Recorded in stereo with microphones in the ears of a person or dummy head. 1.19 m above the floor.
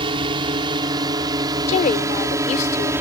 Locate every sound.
0.0 s a drone: 25° right (ahead or behind); by 3.0 s 15° right (ahead or behind)
1.7 s a woman speaking: 35° left (ahead or behind)